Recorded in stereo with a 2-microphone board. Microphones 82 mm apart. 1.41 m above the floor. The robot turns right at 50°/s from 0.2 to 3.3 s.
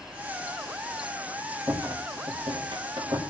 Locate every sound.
1.7 s a rattle: 40° right (ahead or behind), 3 m; by 3.2 s 65° right (ahead or behind), 3 m